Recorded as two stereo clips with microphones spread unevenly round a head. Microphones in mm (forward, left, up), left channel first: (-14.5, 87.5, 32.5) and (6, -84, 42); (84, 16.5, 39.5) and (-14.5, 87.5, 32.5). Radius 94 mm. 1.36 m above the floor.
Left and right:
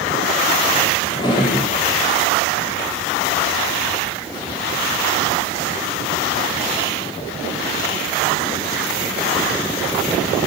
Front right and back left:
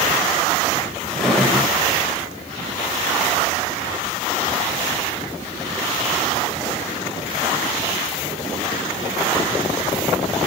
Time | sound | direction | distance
1.1 | a drawer | 45° left | 1.3 m